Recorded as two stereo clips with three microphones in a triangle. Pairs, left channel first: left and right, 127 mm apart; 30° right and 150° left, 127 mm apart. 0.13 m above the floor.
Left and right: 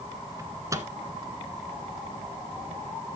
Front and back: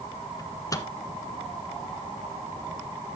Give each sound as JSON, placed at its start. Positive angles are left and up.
{"t": 0.4, "sound": "a microwave", "azimuth_deg": -55, "distance_m": 1.3}